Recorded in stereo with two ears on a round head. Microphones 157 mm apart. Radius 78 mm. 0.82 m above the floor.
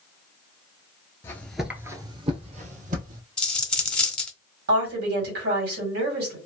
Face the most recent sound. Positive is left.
turn(degrees=-65)  # may be behind; listen again after turning